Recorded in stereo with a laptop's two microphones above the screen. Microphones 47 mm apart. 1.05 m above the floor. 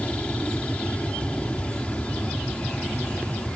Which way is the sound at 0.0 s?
25° left (ahead or behind).